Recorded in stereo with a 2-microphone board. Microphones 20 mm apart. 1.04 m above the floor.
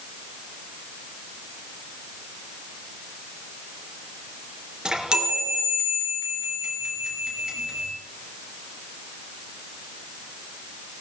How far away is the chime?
About 3.5 m.